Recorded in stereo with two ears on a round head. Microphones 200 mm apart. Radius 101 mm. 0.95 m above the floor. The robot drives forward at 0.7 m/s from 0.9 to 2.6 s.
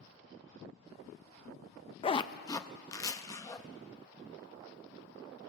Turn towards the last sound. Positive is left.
turn(degrees=15)  # may be behind; listen again after turning